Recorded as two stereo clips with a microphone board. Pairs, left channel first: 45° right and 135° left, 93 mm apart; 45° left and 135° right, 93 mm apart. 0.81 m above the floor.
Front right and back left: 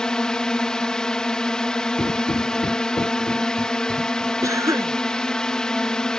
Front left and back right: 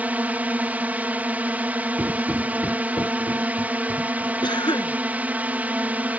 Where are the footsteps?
85° right; by 4.3 s 15° left.